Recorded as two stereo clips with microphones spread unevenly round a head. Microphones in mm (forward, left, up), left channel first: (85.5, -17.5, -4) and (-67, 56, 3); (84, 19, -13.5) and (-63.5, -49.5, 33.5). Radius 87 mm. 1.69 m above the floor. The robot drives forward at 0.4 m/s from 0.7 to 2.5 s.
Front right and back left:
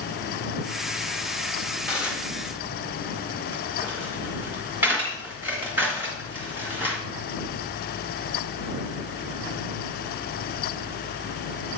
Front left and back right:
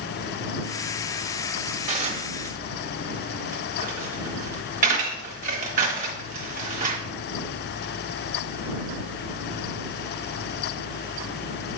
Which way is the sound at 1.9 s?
120° right.